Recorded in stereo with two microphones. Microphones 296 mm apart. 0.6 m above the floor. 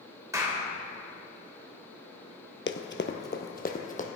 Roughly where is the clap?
Centre.